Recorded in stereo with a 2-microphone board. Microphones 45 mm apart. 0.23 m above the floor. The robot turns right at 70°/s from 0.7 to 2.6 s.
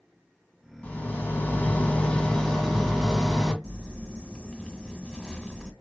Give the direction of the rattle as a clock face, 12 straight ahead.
10 o'clock.